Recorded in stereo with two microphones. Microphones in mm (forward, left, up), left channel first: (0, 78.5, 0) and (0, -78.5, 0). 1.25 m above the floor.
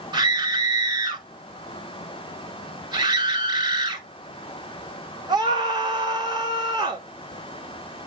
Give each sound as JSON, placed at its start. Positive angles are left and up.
{"t": 0.1, "sound": "a scream", "side_deg": -30, "distance_m": 4.0}